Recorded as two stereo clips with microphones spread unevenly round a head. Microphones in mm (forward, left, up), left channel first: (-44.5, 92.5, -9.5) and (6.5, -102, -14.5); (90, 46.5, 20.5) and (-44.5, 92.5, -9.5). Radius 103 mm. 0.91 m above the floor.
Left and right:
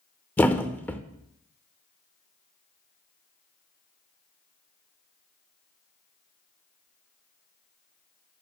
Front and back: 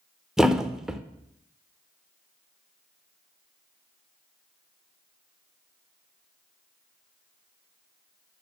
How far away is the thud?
About 0.5 m.